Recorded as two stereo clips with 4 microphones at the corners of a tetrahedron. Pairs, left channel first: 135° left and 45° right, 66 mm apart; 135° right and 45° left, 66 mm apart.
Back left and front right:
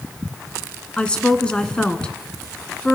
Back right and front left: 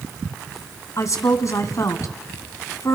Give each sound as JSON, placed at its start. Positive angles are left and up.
{"t": 1.0, "sound": "a woman speaking", "azimuth_deg": -155, "distance_m": 2.5}